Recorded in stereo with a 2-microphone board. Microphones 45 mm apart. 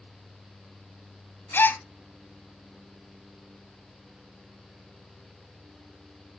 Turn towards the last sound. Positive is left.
turn(degrees=50)  # may be behind; listen again after turning